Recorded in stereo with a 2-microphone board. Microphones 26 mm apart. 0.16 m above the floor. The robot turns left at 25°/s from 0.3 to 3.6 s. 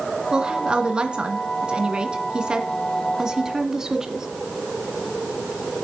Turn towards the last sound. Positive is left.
turn(degrees=-145)